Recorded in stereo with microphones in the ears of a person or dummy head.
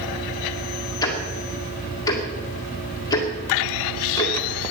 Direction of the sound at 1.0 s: 20° left (ahead or behind).